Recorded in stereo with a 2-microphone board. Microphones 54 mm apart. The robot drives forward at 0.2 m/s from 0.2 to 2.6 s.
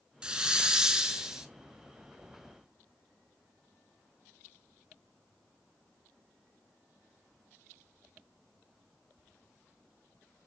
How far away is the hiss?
About 0.6 m.